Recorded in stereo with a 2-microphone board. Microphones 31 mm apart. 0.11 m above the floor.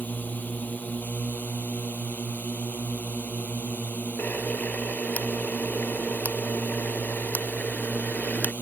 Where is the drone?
65° left (ahead or behind).